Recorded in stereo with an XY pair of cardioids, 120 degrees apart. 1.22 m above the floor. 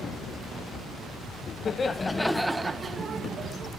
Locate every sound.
1.6 s laughter: 40° left, 0.9 m; by 3.7 s 45° right, 1.2 m